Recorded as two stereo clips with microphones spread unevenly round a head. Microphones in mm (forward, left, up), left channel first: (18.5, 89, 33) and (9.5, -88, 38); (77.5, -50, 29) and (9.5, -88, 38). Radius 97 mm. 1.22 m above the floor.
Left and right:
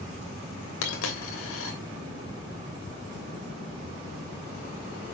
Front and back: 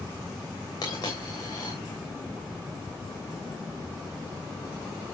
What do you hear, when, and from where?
0.8 s a dropped coin: 95° left, 3 m